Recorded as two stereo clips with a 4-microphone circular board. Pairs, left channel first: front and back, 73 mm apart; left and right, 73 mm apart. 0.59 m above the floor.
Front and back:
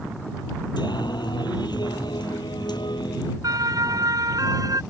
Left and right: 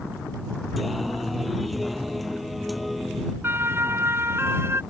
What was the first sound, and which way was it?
Singing, straight ahead.